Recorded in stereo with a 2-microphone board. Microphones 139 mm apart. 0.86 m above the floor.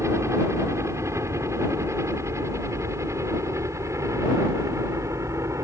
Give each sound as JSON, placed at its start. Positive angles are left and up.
{"t": 0.0, "sound": "a helicopter", "side_deg": -20}